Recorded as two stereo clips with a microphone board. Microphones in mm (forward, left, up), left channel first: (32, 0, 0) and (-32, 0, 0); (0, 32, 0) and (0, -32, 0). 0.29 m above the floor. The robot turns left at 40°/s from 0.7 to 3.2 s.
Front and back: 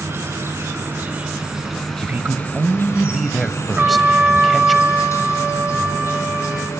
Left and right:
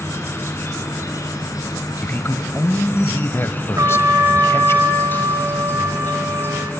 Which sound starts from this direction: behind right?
A trumpet, at 3.8 s.